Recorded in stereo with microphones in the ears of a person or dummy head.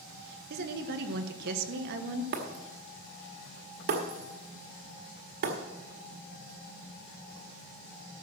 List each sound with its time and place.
0.5 s a woman speaking: 60° right (ahead or behind), 1.4 m
2.3 s breaking glass: 50° right (ahead or behind), 1.7 m